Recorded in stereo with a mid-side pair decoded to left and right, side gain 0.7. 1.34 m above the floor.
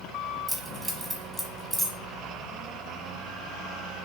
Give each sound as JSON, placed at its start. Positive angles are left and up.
{"t": 0.5, "sound": "keys jangling", "azimuth_deg": -5, "distance_m": 0.9}